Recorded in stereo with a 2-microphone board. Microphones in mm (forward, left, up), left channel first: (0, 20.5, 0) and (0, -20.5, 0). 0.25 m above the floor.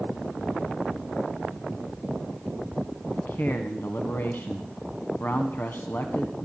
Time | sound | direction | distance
3.1 | a man speaking | 55° left (ahead or behind) | 1.7 m